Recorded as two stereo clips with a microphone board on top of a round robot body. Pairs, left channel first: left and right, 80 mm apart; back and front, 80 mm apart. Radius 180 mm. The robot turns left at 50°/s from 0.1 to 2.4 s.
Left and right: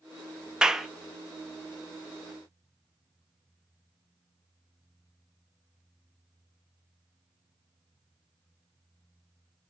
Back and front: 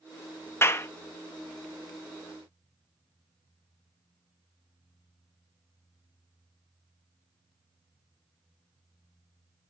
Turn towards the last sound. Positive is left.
turn(degrees=110)